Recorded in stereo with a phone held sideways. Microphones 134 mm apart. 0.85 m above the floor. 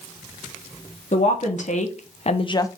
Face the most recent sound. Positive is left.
turn(degrees=25)  # may be behind; listen again after turning